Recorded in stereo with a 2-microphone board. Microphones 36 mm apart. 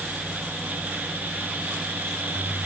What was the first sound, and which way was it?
Only background noise.